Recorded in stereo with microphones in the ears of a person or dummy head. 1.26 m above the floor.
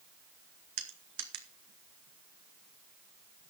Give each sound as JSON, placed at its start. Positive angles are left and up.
{"t": 0.8, "sound": "crushing", "side_deg": -60, "distance_m": 2.0}